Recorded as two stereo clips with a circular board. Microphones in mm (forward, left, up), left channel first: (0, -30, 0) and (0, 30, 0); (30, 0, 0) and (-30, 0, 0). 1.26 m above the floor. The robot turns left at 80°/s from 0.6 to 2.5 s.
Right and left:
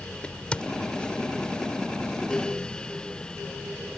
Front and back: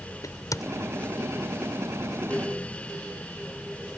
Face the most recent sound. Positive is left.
turn(degrees=-170)